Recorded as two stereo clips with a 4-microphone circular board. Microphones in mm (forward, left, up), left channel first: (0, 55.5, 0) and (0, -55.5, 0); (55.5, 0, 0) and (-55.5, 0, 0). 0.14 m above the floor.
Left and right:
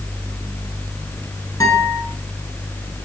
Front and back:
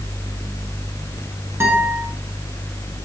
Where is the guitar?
130° left, 2 m.